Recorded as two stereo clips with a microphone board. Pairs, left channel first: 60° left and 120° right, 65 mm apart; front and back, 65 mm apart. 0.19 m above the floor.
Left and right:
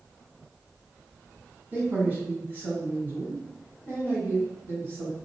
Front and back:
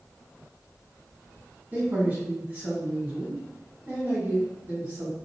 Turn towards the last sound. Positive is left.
turn(degrees=-145)